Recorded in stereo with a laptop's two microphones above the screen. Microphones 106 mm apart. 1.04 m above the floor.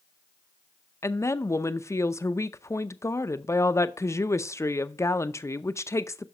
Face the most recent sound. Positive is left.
turn(degrees=30)  # may be behind; listen again after turning